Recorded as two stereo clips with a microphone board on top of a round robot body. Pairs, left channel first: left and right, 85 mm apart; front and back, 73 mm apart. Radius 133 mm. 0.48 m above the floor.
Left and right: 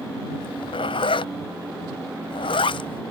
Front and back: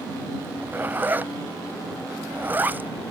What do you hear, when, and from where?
0.4 s a zipper: 110° left